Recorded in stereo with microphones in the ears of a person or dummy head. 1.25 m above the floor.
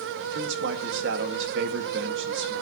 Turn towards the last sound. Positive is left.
turn(degrees=-70)  # may be behind; listen again after turning